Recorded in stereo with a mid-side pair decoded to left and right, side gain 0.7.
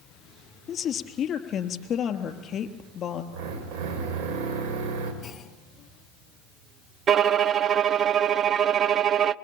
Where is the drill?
65° right, 6 m.